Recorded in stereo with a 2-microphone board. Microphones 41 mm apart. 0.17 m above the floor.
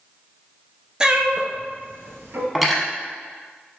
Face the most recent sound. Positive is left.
turn(degrees=-5)  # may be behind; listen again after turning